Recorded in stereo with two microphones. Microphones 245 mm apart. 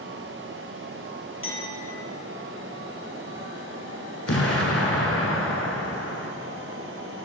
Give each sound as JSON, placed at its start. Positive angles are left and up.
{"t": 1.4, "sound": "a clink", "side_deg": 55, "distance_m": 3.0}
{"t": 4.3, "sound": "an explosion", "side_deg": 65, "distance_m": 1.1}